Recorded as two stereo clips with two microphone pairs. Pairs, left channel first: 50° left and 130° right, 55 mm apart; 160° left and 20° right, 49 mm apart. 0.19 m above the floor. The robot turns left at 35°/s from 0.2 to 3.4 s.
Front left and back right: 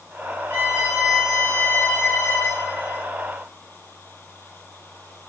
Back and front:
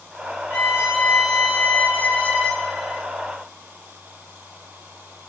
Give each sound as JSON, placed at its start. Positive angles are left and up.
{"t": 0.5, "sound": "a violin", "azimuth_deg": 170, "distance_m": 2.5}